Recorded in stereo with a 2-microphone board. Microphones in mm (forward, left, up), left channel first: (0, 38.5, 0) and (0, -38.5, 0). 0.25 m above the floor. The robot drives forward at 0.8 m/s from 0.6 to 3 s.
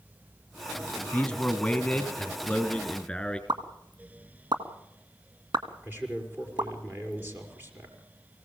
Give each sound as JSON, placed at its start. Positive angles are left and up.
{"t": 1.1, "sound": "a man speaking", "side_deg": 15, "distance_m": 1.5}
{"t": 3.5, "sound": "a pop", "side_deg": -65, "distance_m": 2.0}
{"t": 5.8, "sound": "a man speaking", "side_deg": -25, "distance_m": 5.0}